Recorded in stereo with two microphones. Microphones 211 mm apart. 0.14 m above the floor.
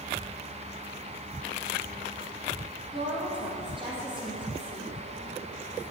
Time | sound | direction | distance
2.9 | a woman speaking | 25° right (ahead or behind) | 5 m